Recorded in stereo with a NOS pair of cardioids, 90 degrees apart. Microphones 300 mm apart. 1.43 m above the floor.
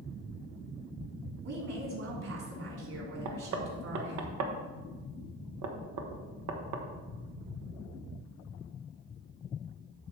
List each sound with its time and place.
1.4 s a woman speaking: 55° right, 3 m
3.2 s knocking: 65° right, 1.1 m